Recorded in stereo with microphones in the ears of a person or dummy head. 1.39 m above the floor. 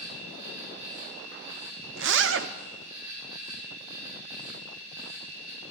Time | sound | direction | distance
0.0 | an insect | 75° right (ahead or behind) | 7.5 m
2.0 | a zipper | 55° right (ahead or behind) | 0.5 m